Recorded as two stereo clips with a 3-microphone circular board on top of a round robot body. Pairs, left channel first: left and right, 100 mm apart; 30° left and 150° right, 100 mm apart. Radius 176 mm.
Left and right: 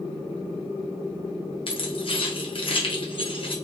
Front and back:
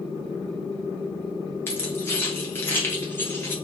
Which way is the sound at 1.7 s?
95° left.